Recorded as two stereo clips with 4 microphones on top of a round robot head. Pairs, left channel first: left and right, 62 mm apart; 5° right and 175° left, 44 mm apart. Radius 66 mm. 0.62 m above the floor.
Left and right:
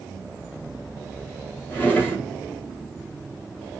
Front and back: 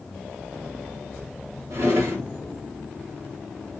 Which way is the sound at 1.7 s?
155° left.